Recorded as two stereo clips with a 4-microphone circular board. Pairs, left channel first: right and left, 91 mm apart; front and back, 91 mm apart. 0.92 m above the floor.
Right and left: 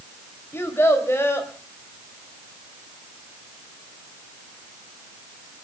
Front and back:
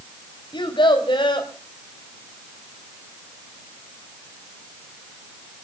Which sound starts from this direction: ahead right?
A child speaking, at 0.5 s.